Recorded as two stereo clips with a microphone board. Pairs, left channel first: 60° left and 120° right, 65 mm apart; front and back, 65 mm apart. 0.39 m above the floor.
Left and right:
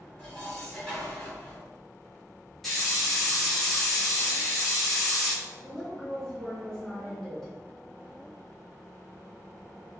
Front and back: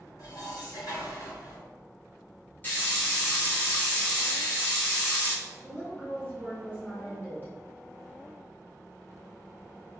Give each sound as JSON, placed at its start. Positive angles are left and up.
{"t": 0.2, "sound": "dishes clattering", "azimuth_deg": -20, "distance_m": 1.7}
{"t": 2.6, "sound": "a hiss", "azimuth_deg": -25, "distance_m": 1.0}
{"t": 5.6, "sound": "a woman speaking", "azimuth_deg": -15, "distance_m": 0.9}